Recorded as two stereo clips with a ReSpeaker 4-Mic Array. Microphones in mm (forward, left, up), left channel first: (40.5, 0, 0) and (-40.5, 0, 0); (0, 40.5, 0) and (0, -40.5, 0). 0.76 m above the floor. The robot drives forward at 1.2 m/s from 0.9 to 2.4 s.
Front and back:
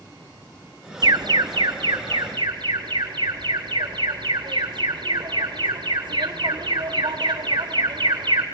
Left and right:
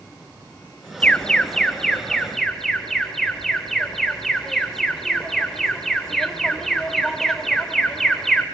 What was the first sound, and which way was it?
An alarm, 160° left.